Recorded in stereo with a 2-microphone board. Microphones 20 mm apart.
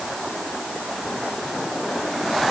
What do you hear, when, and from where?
Only background noise.